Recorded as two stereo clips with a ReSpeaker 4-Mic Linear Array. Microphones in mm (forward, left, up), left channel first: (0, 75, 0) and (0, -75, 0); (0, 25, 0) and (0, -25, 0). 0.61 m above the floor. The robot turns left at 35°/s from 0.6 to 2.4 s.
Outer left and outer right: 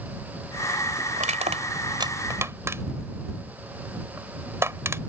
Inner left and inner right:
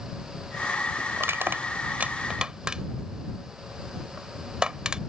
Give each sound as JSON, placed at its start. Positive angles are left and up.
{"t": 1.2, "sound": "crushing", "side_deg": -55}